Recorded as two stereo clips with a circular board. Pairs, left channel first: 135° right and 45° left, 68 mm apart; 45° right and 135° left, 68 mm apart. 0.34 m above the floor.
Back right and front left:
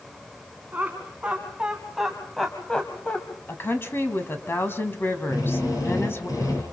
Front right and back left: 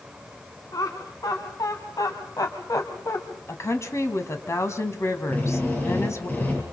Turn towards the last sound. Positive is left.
turn(degrees=-110)